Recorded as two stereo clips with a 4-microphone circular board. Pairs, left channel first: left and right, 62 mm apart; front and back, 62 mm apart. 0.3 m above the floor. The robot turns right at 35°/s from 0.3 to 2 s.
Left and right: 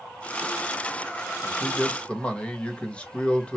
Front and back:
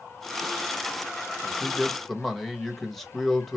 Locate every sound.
1.4 s a man speaking: 55° left, 0.9 m; by 3.6 s 75° left, 0.9 m